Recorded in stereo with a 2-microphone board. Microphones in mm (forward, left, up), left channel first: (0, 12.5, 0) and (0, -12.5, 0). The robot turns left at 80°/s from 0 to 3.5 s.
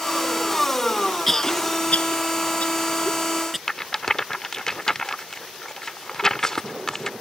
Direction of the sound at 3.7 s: 20° left (ahead or behind).